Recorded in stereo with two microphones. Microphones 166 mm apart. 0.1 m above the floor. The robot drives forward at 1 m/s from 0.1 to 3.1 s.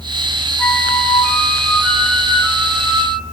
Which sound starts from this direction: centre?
A flute, at 0.6 s.